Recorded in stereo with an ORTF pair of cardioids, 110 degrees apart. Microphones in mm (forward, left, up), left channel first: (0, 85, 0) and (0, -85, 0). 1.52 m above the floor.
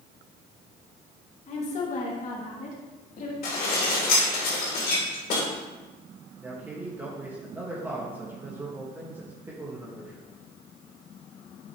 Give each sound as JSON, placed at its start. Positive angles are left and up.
{"t": 1.5, "sound": "a woman speaking", "azimuth_deg": 45, "distance_m": 2.0}
{"t": 3.4, "sound": "dishes clattering", "azimuth_deg": 65, "distance_m": 3.0}
{"t": 6.4, "sound": "a man speaking", "azimuth_deg": -10, "distance_m": 1.7}